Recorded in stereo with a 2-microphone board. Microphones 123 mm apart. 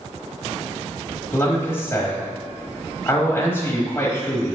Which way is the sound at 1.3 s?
20° left (ahead or behind).